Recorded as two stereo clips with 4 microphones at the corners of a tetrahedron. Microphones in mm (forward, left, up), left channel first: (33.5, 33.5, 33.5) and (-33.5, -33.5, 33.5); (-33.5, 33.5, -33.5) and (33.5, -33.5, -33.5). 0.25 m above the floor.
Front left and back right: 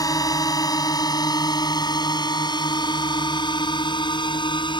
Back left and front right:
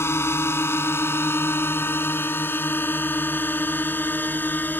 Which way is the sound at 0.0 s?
80° left.